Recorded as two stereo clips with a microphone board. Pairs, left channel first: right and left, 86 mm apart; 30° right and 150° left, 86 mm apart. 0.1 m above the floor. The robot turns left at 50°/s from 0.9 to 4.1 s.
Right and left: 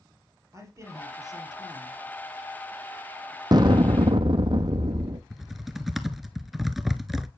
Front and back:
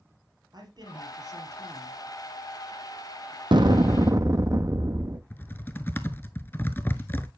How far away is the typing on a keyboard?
About 0.5 m.